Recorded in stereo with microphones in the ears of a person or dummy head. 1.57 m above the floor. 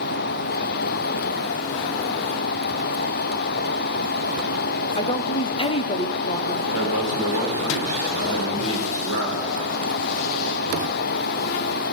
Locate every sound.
5.0 s a woman speaking: 35° left (ahead or behind), 0.7 m
6.7 s a man speaking: 85° left, 4.5 m